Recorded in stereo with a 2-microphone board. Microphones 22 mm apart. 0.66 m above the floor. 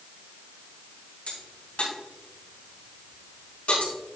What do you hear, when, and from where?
1.3 s a crack: 70° left (ahead or behind), 3.5 m